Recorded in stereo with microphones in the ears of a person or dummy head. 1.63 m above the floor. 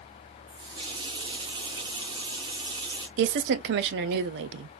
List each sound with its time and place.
0.5 s a running tap: 25° right (ahead or behind), 0.9 m
3.2 s a woman speaking: 60° right (ahead or behind), 0.5 m